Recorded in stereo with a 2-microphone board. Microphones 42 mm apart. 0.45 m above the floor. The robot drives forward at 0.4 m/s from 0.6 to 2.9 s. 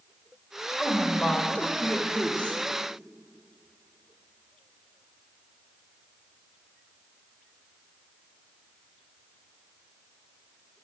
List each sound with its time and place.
0.8 s a woman speaking: 20° left (ahead or behind), 1.5 m; by 2.6 s 35° left (ahead or behind), 1.0 m